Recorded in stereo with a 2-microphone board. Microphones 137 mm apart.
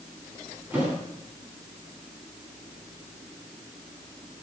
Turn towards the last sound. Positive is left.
turn(degrees=-15)  # may be behind; listen again after turning